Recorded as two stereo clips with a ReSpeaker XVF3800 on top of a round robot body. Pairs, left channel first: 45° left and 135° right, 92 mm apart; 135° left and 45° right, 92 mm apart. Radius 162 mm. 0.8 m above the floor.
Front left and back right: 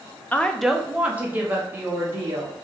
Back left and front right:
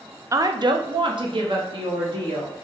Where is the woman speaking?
15° right, 0.6 m; by 2.5 s 75° right, 1.7 m.